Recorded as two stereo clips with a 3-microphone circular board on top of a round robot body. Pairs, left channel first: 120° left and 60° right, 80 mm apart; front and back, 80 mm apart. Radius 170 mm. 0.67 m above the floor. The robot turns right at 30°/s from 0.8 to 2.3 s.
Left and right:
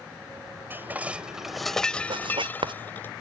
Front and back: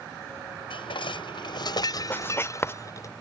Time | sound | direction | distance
0.7 | dishes clattering | 5° left | ?
2.1 | writing | 65° right | ?